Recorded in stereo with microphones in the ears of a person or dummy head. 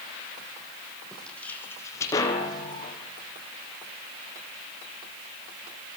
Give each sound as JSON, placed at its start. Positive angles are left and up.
{"t": 1.1, "sound": "footsteps", "side_deg": 5, "distance_m": 4.5}